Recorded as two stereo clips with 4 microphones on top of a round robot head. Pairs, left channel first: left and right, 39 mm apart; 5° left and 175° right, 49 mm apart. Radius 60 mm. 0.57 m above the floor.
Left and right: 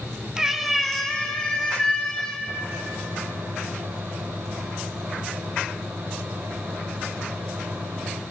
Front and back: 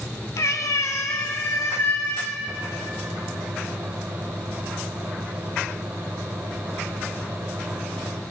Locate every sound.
0.4 s a cat meowing: 15° right, 1.1 m; by 2.4 s 30° left, 3 m
2.5 s a microwave: 140° right, 2.5 m